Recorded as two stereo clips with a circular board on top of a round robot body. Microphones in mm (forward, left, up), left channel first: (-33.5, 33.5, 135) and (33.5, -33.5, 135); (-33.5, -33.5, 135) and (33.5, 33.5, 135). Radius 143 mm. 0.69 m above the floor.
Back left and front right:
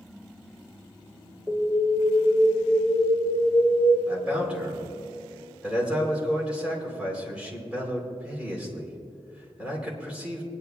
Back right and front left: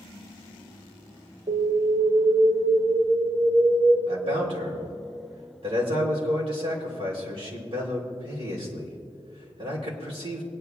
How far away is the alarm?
About 4 m.